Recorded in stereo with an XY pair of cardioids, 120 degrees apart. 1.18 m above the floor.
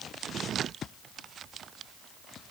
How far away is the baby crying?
I don't hear a baby crying.